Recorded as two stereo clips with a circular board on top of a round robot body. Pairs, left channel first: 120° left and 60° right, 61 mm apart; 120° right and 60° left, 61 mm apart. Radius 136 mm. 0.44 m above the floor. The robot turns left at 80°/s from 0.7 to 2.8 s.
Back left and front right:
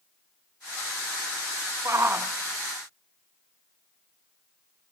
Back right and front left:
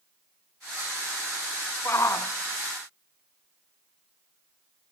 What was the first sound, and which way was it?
A shout, 80° right.